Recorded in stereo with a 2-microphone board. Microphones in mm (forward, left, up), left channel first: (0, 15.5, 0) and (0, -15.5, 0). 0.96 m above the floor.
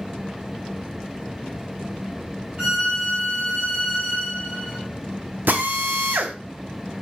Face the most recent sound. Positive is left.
turn(degrees=-85)